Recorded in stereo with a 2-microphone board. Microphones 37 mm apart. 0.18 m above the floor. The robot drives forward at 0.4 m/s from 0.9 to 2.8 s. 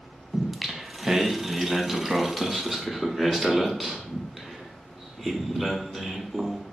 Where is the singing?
5° right (ahead or behind), 0.5 m.